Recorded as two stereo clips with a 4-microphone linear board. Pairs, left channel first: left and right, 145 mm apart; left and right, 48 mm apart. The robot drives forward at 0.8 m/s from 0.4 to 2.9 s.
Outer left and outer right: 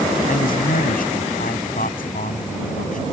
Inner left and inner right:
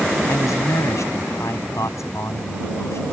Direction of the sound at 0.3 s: 80° left.